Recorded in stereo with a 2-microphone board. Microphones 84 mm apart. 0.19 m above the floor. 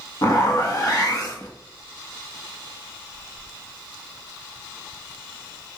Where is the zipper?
45° left (ahead or behind), 1.0 m.